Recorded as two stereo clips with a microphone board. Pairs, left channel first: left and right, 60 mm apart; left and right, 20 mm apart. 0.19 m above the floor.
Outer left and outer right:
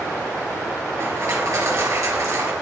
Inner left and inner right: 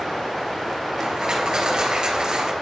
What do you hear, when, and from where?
1.0 s crushing: 60° right (ahead or behind), 4 m